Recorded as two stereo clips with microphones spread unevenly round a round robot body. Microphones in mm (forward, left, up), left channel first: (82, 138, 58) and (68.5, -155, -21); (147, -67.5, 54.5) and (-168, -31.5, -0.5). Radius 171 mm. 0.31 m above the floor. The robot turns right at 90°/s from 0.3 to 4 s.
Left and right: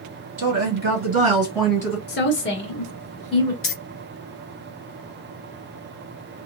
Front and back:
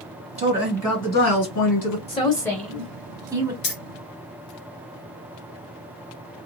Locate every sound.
0.4 s a woman speaking: 135° right, 1.7 m; by 2.0 s 10° left, 1.7 m
2.1 s a woman speaking: 55° left, 0.9 m; by 3.5 s 170° right, 0.9 m
3.6 s keys jangling: 45° left, 1.1 m; by 3.7 s 55° left, 1.1 m